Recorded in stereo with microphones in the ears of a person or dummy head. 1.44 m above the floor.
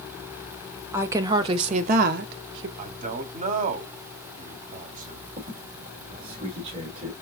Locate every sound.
0.9 s a woman speaking: 15° right (ahead or behind), 1.0 m; by 2.7 s 75° right (ahead or behind), 0.9 m
2.8 s a man speaking: 40° right (ahead or behind), 0.8 m
5.4 s a squeak: 40° right (ahead or behind), 2.0 m